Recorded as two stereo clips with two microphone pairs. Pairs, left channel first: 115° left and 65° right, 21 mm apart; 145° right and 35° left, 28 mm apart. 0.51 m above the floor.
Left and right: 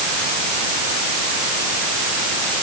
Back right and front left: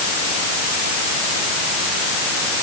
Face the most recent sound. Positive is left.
No sound to turn to.